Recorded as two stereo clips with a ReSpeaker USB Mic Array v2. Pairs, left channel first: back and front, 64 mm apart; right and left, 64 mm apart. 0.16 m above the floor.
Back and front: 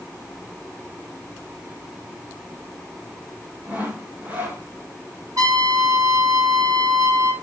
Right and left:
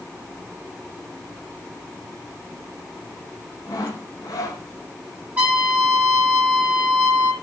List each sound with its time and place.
3.7 s sawing: 65° right, 3 m
5.4 s a trumpet: 25° left, 6.5 m